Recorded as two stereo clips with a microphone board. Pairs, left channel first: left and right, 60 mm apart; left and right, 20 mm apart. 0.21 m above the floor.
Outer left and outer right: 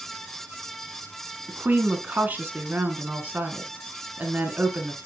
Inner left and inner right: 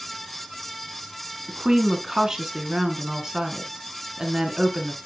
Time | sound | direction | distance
1.5 | a woman speaking | 30° right (ahead or behind) | 2 m